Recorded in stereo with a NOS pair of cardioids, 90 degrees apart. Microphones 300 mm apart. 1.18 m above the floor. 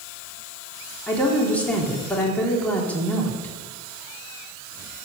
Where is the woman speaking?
5° left, 3.5 m.